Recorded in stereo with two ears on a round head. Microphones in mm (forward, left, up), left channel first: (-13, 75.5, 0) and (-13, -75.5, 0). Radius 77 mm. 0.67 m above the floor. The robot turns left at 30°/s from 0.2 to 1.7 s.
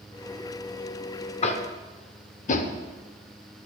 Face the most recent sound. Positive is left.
turn(degrees=45)  # may be behind; listen again after turning